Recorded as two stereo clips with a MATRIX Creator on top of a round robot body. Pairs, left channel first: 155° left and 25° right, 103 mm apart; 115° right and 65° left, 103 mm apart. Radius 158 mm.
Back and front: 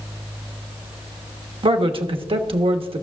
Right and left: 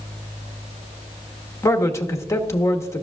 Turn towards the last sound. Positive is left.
turn(degrees=-50)